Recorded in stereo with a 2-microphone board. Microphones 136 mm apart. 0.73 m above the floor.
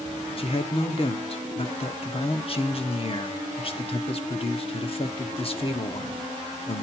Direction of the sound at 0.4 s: 45° left (ahead or behind).